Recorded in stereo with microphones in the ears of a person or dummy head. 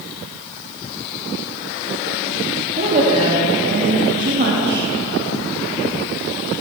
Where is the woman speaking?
35° right (ahead or behind), 3 m; by 4.9 s 60° right (ahead or behind), 2 m.